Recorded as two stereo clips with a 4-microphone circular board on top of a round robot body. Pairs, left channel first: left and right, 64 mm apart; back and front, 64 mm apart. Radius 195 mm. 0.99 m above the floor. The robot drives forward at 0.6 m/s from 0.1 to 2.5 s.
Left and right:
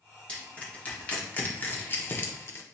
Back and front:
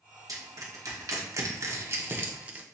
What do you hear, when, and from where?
0.3 s crushing: 20° left, 1.9 m; by 2.6 s 60° left, 1.0 m